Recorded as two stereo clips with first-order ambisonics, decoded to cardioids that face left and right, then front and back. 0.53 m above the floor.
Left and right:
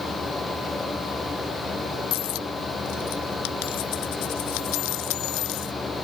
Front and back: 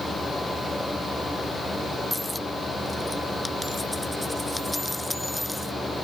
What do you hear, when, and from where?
2.1 s a dropped coin: 85° left